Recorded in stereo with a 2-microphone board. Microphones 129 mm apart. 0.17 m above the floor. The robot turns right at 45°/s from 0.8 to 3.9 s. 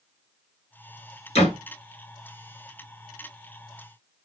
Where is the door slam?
50° left (ahead or behind), 2.5 m; by 1.6 s 55° left (ahead or behind), 2.5 m.